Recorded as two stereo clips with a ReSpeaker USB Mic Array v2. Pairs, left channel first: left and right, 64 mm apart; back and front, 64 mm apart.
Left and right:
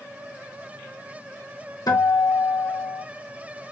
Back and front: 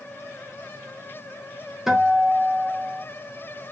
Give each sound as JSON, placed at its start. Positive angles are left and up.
{"t": 1.9, "sound": "a guitar", "azimuth_deg": 85, "distance_m": 1.7}